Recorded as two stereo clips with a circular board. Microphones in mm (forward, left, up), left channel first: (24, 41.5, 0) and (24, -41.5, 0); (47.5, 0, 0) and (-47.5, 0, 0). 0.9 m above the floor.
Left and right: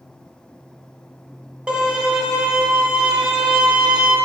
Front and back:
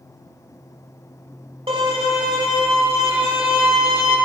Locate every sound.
1.7 s a violin: 165° right, 2 m